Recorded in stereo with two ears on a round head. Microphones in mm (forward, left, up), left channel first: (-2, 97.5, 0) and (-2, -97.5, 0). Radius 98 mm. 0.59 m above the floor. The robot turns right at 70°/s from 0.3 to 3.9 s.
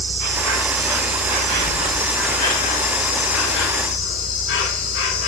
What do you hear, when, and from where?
0.0 s an insect: 130° right, 5 m; by 5.3 s 120° left, 5 m